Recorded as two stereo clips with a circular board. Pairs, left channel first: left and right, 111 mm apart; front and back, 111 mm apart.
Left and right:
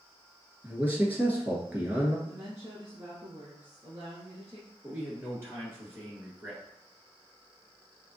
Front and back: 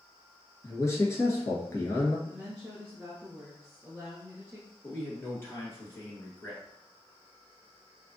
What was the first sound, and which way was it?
A man speaking, 30° right.